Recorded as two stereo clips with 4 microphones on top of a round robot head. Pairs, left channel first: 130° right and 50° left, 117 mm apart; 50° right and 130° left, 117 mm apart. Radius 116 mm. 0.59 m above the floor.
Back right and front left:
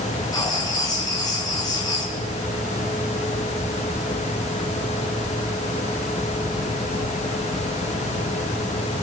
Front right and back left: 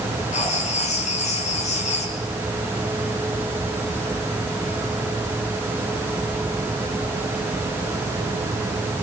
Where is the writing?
70° right, 5.5 m.